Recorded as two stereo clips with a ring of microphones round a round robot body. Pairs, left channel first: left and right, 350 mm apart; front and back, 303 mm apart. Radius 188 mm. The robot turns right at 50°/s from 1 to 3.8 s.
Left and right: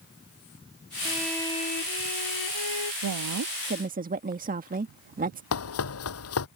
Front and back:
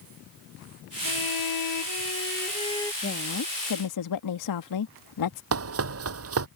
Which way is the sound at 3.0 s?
65° right.